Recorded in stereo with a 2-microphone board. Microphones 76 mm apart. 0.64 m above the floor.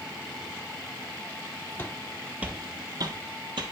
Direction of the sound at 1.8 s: 25° left (ahead or behind).